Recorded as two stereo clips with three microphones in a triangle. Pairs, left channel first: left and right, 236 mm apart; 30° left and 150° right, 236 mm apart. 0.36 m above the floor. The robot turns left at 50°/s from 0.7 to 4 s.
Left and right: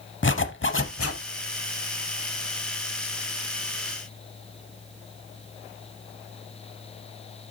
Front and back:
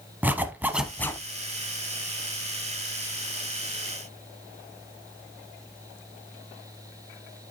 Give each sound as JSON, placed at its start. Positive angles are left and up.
{"t": 0.2, "sound": "a zipper", "azimuth_deg": 130, "distance_m": 0.8}